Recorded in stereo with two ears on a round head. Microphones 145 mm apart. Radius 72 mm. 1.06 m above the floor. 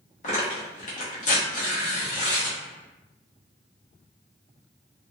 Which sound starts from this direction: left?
Tearing paper, at 0.2 s.